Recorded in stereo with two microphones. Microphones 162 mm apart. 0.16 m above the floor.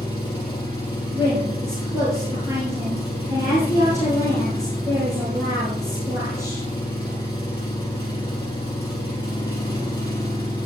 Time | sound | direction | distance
0.0 | an engine running | 25° left (ahead or behind) | 3.5 m
1.1 | a woman speaking | 20° right (ahead or behind) | 4 m